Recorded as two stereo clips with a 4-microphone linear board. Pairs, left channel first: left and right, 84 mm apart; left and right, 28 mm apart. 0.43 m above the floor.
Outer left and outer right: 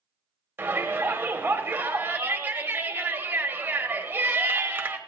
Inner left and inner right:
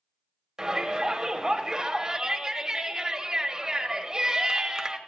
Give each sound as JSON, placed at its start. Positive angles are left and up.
{"t": 0.6, "sound": "a shout", "side_deg": -25, "distance_m": 1.6}